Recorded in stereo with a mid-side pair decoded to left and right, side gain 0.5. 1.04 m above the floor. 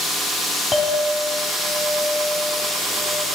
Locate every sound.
0.7 s a clink: 30° left, 1.6 m